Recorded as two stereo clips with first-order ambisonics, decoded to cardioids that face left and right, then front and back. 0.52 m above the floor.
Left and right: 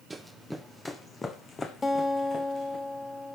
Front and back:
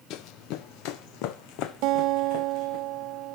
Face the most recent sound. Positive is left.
turn(degrees=165)